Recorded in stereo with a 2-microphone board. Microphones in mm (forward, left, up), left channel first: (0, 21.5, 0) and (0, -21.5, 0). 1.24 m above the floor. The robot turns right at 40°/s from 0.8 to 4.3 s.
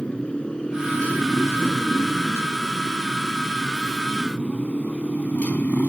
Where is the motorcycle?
25° left (ahead or behind); by 5.9 s 40° left (ahead or behind).